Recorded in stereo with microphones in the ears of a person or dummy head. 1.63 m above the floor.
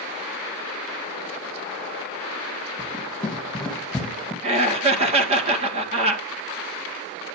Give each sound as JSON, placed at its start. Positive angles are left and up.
{"t": 2.8, "sound": "running footsteps", "side_deg": 5, "distance_m": 4.0}
{"t": 4.4, "sound": "laughter", "side_deg": -35, "distance_m": 1.8}